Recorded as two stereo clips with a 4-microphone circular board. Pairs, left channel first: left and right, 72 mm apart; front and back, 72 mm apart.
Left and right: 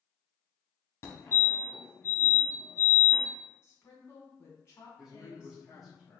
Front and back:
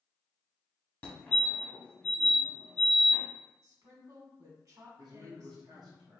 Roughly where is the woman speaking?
Behind left.